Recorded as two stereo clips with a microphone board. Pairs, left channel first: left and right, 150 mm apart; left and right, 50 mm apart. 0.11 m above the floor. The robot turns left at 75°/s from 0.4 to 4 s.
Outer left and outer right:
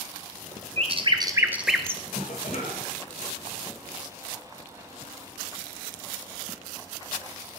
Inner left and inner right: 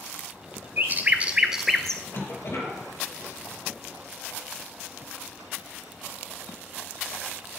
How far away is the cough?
About 3 m.